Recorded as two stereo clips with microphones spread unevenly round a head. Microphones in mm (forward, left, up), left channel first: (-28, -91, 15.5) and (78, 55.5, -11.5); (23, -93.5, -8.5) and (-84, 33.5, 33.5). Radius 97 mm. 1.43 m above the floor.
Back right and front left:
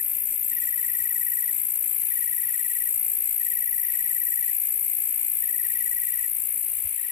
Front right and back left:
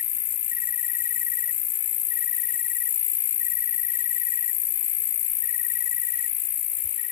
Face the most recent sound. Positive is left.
turn(degrees=-95)